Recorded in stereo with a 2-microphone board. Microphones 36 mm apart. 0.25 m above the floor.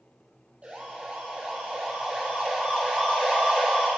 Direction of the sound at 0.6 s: 35° right (ahead or behind).